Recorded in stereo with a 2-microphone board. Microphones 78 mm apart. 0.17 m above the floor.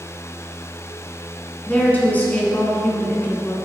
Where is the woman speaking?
20° left (ahead or behind), 1.9 m.